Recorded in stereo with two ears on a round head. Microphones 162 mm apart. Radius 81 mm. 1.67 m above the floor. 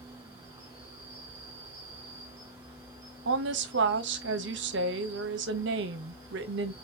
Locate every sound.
0.0 s an insect: 20° right (ahead or behind), 2 m
3.2 s a woman speaking: 75° right (ahead or behind), 0.8 m